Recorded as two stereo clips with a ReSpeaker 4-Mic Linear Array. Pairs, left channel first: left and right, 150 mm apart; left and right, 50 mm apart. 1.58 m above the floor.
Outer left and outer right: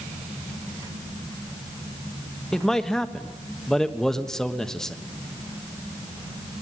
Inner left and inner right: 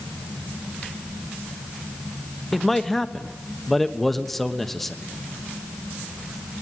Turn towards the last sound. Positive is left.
turn(degrees=5)  # may be behind; listen again after turning